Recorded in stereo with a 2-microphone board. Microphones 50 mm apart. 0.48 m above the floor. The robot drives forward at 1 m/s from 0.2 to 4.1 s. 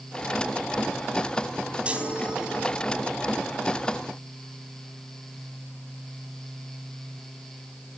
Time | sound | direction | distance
1.9 | a chime | 25° right (ahead or behind) | 2.5 m